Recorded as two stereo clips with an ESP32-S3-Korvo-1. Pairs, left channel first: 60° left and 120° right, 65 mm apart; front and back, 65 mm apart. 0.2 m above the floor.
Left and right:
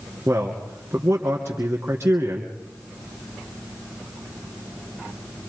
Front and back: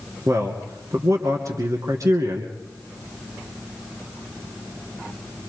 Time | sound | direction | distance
0.3 | a man speaking | 165° right | 2.5 m